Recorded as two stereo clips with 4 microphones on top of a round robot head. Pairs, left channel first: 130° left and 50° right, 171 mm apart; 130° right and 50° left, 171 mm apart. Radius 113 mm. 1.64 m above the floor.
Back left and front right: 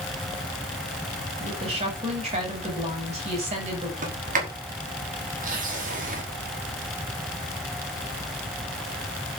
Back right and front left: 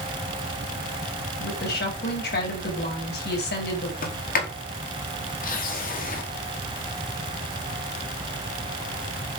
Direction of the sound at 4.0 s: 95° right.